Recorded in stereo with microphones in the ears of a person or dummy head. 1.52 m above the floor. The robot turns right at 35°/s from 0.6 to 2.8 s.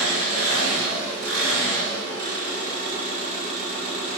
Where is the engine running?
115° right, 1.8 m; by 4.2 s 35° right, 1.8 m.